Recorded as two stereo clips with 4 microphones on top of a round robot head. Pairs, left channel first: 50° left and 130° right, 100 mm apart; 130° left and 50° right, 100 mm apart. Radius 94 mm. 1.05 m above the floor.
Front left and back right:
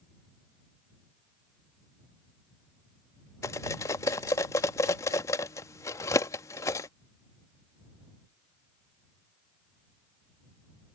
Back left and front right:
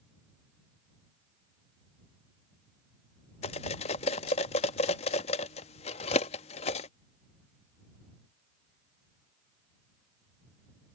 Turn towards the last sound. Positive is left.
turn(degrees=110)